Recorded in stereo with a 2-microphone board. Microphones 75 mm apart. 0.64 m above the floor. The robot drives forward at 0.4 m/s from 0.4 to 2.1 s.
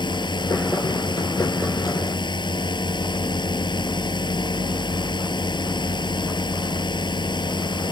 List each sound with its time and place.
0.0 s a drone: 85° left; by 7.9 s 80° left